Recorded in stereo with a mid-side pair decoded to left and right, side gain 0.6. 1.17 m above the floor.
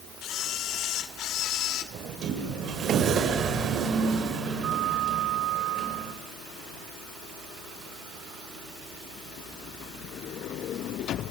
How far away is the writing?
I don't hear writing.